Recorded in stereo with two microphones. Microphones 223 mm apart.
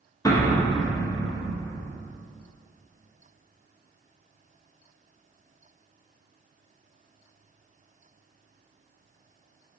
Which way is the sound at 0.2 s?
15° left (ahead or behind).